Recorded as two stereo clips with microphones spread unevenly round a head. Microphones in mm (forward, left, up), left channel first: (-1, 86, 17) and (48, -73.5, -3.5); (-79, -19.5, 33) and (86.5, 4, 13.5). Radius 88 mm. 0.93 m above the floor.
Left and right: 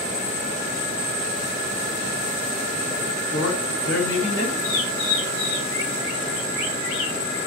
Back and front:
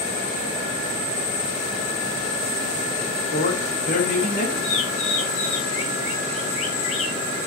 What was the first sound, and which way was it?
A man speaking, 140° left.